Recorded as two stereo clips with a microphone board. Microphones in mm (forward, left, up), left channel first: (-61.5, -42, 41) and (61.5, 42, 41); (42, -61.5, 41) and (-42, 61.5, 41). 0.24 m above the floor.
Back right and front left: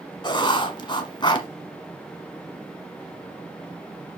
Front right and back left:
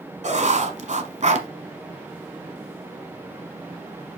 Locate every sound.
0.2 s writing: 160° left, 1.1 m